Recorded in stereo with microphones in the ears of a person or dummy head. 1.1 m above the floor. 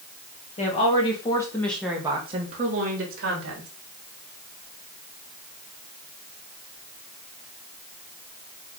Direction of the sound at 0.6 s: 35° left (ahead or behind).